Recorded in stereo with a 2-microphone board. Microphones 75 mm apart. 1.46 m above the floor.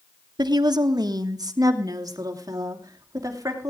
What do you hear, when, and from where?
0.4 s a woman speaking: 65° right (ahead or behind), 1.1 m; by 3.7 s 45° right (ahead or behind), 3 m